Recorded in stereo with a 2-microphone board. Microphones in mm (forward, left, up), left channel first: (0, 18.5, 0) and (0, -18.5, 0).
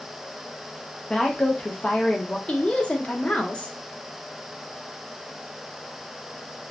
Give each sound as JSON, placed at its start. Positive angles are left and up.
{"t": 1.1, "sound": "a woman speaking", "side_deg": 20, "distance_m": 0.5}
{"t": 2.5, "sound": "a woman speaking", "side_deg": 30, "distance_m": 0.6}